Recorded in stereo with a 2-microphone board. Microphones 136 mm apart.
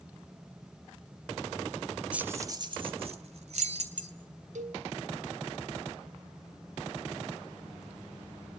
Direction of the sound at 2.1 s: 10° right (ahead or behind).